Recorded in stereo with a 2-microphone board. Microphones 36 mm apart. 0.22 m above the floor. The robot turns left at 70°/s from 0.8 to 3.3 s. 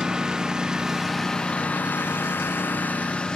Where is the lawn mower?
160° right; by 3.4 s 25° left.